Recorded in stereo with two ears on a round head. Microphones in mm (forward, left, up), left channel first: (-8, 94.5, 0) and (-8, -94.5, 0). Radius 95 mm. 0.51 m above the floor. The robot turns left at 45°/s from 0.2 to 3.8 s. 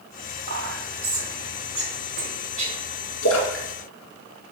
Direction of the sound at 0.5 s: 40° right (ahead or behind).